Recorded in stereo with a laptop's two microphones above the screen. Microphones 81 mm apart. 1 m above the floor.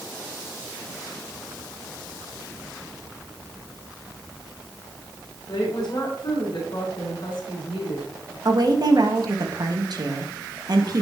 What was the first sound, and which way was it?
A woman speaking, 70° left (ahead or behind).